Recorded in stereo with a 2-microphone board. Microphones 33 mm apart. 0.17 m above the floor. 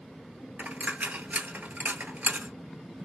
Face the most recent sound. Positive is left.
turn(degrees=-60)  # may be behind; listen again after turning